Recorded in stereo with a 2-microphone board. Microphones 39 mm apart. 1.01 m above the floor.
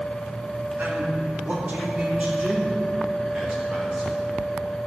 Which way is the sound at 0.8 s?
70° right (ahead or behind).